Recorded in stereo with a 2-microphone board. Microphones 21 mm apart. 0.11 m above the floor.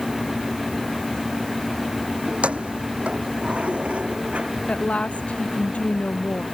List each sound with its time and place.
2.3 s keys jangling: 75° right (ahead or behind)
4.7 s a woman speaking: 80° left